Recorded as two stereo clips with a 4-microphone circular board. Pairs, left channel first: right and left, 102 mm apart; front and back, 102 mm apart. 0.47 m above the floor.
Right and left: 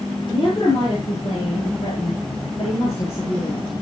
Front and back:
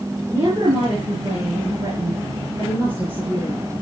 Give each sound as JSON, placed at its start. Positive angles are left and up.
{"t": 0.3, "sound": "a woman speaking", "azimuth_deg": -130, "distance_m": 8.0}